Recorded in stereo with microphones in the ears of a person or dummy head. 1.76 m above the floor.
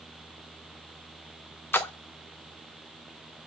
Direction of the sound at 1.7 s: 10° left (ahead or behind).